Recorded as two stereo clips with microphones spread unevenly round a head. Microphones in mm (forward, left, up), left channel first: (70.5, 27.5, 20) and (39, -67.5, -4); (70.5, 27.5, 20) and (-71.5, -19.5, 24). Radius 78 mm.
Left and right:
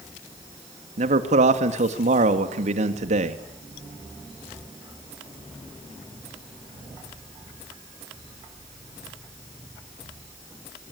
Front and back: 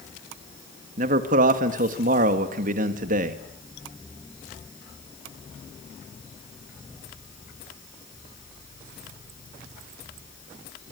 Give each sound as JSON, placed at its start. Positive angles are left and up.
{"t": 1.0, "sound": "a man speaking", "azimuth_deg": -120, "distance_m": 2.0}